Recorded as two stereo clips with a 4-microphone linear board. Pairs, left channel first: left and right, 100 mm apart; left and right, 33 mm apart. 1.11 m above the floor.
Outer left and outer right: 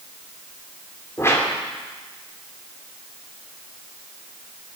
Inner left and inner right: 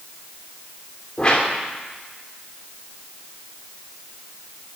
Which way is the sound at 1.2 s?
25° left (ahead or behind).